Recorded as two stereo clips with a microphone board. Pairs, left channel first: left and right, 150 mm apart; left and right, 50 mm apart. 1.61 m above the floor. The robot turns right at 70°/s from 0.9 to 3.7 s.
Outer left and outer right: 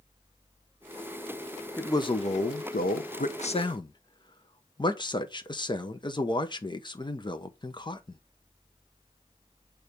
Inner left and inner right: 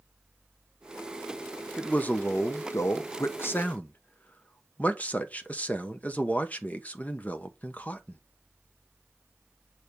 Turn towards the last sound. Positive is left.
turn(degrees=150)